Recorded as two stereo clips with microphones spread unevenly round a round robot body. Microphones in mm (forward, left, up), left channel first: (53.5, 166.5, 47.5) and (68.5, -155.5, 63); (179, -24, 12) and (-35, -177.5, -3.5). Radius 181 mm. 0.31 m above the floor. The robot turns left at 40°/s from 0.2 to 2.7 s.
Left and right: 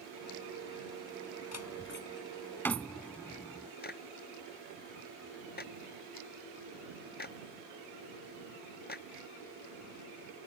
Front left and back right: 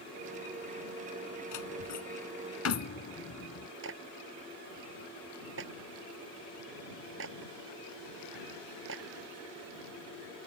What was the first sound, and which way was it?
A door slam, 55° left.